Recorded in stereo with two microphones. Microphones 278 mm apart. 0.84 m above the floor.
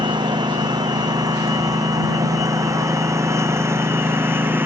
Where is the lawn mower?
15° right (ahead or behind); by 4.7 s 5° right (ahead or behind).